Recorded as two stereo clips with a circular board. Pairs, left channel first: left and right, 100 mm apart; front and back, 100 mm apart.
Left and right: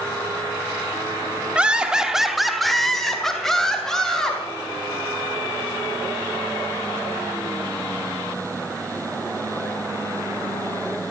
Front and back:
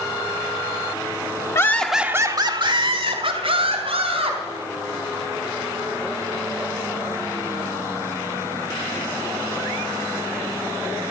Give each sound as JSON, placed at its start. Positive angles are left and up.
{"t": 1.6, "sound": "laughter", "azimuth_deg": -20, "distance_m": 1.0}